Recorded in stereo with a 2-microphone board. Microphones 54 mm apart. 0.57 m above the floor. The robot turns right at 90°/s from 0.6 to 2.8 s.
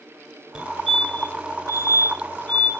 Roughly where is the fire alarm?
Centre.